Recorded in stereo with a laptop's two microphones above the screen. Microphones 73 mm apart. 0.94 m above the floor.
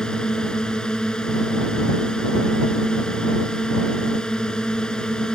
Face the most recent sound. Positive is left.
turn(degrees=10)  # may be behind; listen again after turning